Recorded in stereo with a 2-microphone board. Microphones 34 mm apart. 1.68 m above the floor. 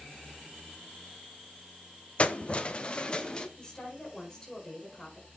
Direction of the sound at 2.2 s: 35° left (ahead or behind).